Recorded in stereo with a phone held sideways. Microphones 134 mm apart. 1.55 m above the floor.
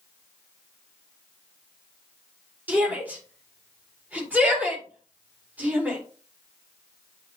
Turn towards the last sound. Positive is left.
turn(degrees=-10)  # may be behind; listen again after turning